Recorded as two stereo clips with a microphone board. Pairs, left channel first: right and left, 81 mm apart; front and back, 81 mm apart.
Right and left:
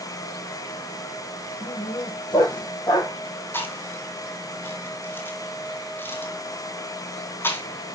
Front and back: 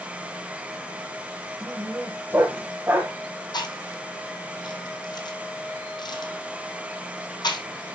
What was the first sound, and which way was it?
A dog barking, 115° right.